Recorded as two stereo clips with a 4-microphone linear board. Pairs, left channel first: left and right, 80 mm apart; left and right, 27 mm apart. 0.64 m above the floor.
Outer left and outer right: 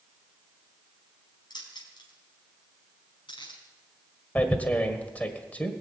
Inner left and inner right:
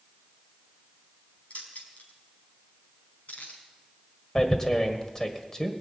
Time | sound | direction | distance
1.5 | keys jangling | 65° left (ahead or behind) | 4 m
4.3 | tearing paper | 20° left (ahead or behind) | 1.5 m